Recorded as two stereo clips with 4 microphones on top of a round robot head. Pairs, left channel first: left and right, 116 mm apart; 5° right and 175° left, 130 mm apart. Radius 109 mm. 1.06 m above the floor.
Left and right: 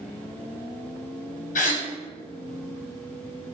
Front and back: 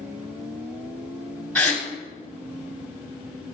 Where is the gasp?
80° left, 2 m.